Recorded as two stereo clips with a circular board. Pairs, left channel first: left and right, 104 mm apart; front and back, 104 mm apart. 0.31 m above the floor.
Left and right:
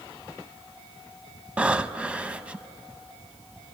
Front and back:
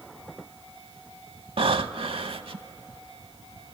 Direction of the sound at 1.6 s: 165° right.